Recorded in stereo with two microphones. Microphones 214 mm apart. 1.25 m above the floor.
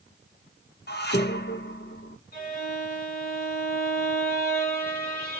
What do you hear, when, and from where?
0.9 s dishes clattering: 50° left (ahead or behind), 0.7 m
2.3 s a violin: 45° left (ahead or behind), 1.5 m